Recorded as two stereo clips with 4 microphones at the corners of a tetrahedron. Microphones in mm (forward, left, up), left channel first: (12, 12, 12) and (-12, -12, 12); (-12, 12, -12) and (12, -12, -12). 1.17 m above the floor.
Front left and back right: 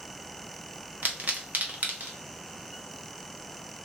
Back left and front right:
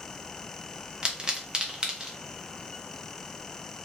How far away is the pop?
About 0.6 m.